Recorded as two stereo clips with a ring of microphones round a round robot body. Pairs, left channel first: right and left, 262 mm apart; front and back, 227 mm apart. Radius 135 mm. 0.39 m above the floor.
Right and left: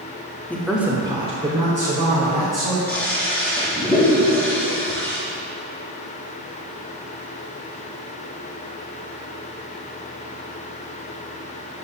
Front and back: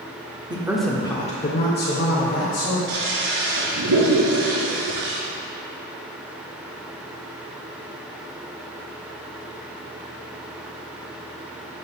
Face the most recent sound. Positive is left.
turn(degrees=-175)